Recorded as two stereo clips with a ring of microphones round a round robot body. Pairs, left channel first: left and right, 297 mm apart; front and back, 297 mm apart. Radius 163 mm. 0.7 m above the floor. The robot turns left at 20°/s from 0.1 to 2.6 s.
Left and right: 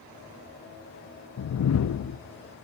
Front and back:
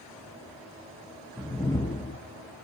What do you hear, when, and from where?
1.4 s a whoosh: 85° left, 0.6 m; by 2.2 s 65° left, 0.6 m